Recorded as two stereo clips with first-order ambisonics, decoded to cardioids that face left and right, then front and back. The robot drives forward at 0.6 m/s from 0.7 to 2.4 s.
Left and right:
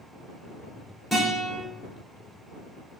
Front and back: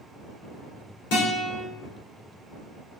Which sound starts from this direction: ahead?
A guitar, at 1.1 s.